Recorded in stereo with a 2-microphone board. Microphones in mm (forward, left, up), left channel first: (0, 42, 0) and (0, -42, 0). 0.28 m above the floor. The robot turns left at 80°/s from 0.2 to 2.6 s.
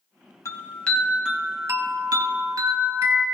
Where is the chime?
50° left, 2 m; by 3.2 s 125° right, 2 m.